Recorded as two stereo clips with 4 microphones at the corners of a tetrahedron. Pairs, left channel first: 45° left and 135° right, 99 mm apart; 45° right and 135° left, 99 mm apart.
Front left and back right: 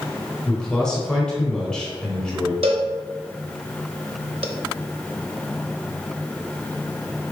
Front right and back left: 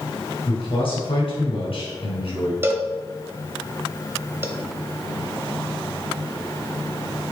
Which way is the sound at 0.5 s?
40° right.